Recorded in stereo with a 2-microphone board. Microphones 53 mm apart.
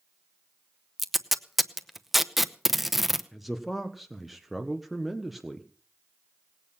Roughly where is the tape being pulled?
Centre.